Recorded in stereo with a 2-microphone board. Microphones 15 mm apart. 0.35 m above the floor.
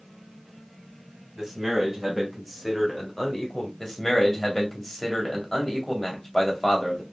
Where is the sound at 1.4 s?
15° right (ahead or behind), 2 m; by 3.7 s 40° left (ahead or behind), 1.6 m.